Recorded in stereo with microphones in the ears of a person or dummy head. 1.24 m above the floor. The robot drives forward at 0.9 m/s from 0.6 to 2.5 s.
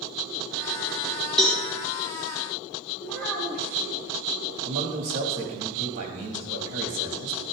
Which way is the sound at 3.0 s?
5° left (ahead or behind).